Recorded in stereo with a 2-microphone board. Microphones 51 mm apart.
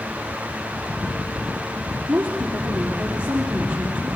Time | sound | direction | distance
2.1 | a woman speaking | 20° right (ahead or behind) | 4 m